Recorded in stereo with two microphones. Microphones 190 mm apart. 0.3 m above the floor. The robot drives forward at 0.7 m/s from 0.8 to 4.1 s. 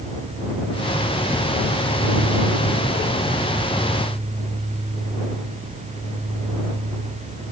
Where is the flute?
I don't hear a flute.